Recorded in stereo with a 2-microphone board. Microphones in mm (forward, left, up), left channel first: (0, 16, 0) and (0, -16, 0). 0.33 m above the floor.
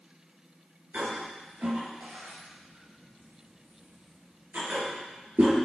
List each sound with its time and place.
0.9 s a toilet flushing: 80° right, 3 m